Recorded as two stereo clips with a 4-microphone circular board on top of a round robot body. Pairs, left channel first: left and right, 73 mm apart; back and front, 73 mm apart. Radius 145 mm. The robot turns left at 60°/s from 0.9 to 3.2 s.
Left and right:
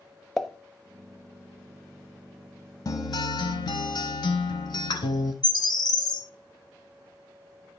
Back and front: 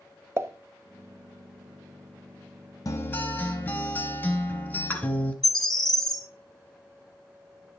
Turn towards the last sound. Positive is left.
turn(degrees=95)